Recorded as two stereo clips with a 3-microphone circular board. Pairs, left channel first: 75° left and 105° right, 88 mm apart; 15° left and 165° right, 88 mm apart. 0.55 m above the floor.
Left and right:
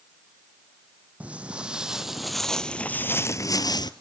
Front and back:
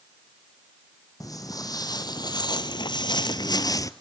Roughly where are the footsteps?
Ahead right.